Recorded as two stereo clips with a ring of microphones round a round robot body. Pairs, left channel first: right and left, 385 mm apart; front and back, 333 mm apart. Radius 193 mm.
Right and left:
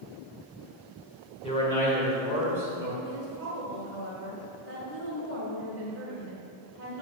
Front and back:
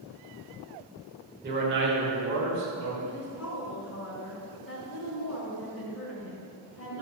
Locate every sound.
1.4 s a man speaking: 150° right, 1.6 m; by 3.0 s 165° left, 2 m
3.0 s a woman speaking: 40° left, 1.7 m